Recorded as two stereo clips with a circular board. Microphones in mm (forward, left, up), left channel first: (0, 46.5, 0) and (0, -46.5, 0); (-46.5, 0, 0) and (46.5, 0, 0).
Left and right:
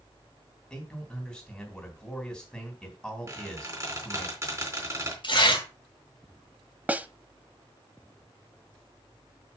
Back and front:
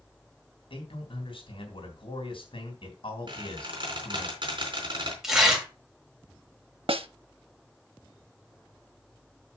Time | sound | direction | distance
0.7 | a man speaking | 170° left | 3 m
3.3 | a squeak | 35° right | 3.5 m
5.2 | tearing paper | 80° left | 2.5 m
6.9 | a snare drum | 15° right | 0.6 m